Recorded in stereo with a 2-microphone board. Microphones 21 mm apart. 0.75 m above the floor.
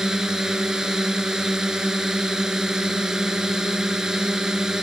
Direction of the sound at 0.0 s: 30° right (ahead or behind).